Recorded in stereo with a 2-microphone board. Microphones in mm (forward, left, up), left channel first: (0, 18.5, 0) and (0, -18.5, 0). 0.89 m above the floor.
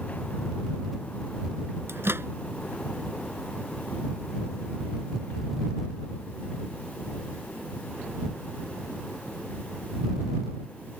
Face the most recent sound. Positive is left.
turn(degrees=-90)